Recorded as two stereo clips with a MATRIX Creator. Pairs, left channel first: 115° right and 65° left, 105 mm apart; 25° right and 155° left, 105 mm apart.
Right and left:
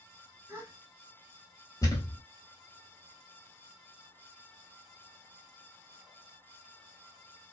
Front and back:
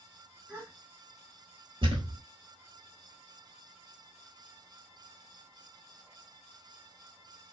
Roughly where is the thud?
Behind.